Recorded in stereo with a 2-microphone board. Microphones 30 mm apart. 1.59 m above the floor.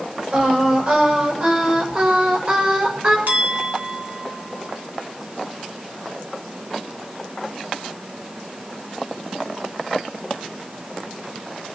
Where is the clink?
75° right (ahead or behind), 2.5 m.